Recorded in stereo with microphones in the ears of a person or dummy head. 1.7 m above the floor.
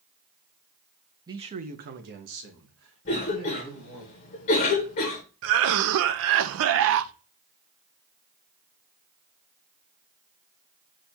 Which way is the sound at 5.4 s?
65° right (ahead or behind).